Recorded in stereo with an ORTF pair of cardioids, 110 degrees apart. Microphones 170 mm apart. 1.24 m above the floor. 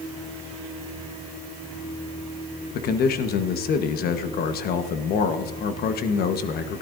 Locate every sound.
2.7 s a man speaking: 65° left, 1.2 m